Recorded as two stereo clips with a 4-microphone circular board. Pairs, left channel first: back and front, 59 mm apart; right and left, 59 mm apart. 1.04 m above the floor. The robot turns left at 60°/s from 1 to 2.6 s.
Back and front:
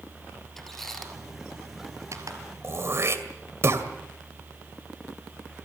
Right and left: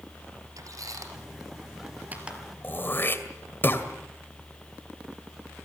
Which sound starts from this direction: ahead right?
Throat clearing, at 2.6 s.